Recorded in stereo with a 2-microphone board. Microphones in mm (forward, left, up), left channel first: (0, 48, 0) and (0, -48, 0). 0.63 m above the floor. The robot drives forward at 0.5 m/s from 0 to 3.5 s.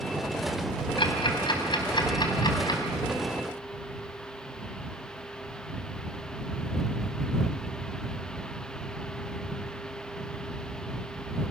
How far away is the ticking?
About 3 m.